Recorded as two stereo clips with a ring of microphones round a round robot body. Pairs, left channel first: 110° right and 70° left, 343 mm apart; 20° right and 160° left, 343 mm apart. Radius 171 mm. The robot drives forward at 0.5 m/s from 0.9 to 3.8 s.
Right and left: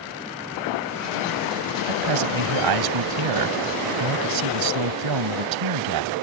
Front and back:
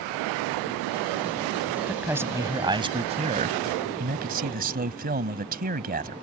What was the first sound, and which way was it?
A man speaking, 70° left.